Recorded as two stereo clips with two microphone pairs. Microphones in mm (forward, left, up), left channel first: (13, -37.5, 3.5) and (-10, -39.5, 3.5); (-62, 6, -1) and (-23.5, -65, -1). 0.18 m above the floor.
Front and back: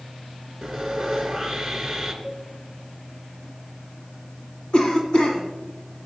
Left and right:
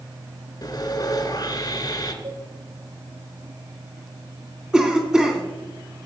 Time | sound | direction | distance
0.6 | sawing | 95° left | 2 m
2.2 | a cowbell | 65° right | 7.5 m
4.7 | a cough | 15° left | 1.9 m